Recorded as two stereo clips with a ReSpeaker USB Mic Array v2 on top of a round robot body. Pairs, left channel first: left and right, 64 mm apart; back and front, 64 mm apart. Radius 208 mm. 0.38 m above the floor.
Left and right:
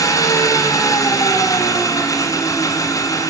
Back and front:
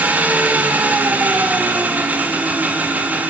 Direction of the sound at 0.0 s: 65° left.